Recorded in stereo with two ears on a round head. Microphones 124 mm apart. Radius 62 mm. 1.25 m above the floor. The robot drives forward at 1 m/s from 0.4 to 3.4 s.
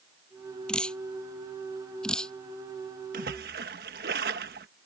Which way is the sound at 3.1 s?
65° right (ahead or behind).